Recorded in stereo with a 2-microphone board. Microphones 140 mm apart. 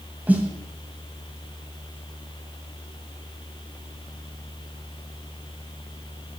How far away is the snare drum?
About 1.4 m.